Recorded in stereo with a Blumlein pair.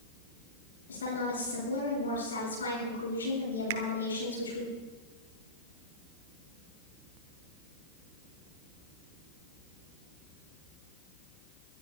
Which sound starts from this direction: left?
A woman speaking, at 0.9 s.